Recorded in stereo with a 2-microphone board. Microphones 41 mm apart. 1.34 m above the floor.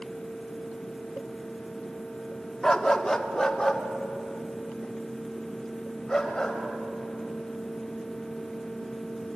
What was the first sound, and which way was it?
A dog barking, 15° left (ahead or behind).